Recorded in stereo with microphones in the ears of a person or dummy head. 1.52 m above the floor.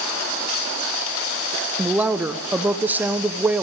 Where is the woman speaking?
10° right (ahead or behind), 0.6 m.